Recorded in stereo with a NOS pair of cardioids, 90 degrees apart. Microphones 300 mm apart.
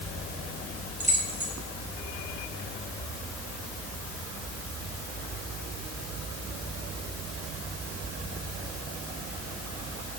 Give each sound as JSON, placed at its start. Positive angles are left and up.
{"t": 1.0, "sound": "keys jangling", "azimuth_deg": -25, "distance_m": 3.5}